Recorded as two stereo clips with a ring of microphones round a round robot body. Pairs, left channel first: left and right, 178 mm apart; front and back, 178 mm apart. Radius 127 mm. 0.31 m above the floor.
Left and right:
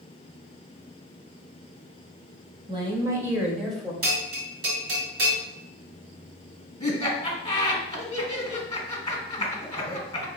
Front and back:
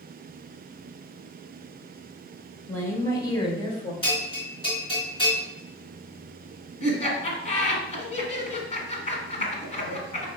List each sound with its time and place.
2.7 s a woman speaking: 75° right, 1.1 m; by 3.9 s 10° left, 1.2 m
4.0 s a bell: 65° right, 2 m
6.8 s laughter: 25° left, 1.5 m